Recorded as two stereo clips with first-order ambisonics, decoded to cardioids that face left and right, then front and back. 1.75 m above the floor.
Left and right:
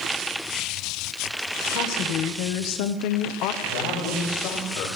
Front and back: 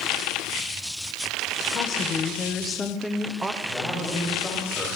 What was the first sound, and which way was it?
A woman speaking, 55° left.